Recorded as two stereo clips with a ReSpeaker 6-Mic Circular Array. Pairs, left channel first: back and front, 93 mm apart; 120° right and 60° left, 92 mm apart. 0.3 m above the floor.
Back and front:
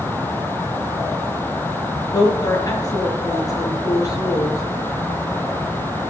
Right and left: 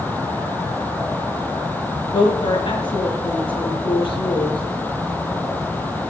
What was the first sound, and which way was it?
A woman speaking, 130° right.